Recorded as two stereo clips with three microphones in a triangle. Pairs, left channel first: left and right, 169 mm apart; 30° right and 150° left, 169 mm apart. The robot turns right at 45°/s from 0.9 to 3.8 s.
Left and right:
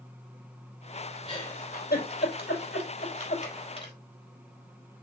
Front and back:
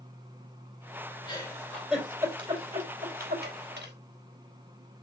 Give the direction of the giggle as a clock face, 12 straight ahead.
11 o'clock.